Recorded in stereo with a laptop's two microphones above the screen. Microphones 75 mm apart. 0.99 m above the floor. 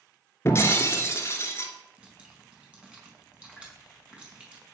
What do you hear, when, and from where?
0.5 s breaking glass: 35° left (ahead or behind), 2.5 m
2.0 s dripping: 15° right (ahead or behind), 5 m